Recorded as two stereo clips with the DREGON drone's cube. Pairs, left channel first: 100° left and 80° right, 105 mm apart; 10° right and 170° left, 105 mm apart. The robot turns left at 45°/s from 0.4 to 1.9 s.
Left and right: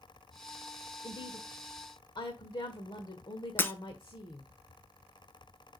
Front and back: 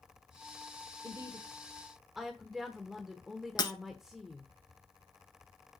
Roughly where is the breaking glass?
Ahead left.